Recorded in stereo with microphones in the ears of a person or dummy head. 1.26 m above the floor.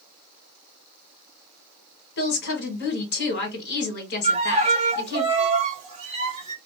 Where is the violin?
35° right (ahead or behind), 0.8 m.